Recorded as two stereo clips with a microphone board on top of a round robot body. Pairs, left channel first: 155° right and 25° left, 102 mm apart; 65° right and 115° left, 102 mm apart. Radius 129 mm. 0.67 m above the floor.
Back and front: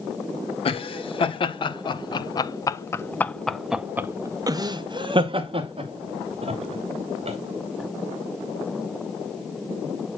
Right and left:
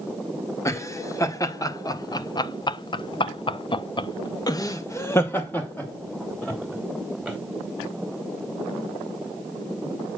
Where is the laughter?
130° right, 1.8 m; by 7.4 s 15° left, 2 m.